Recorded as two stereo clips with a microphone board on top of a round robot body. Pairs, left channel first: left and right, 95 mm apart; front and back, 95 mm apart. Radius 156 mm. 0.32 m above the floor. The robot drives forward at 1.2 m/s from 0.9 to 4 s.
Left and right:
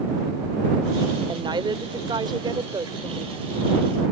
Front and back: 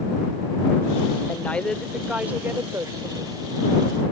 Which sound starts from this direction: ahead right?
A woman speaking, at 1.3 s.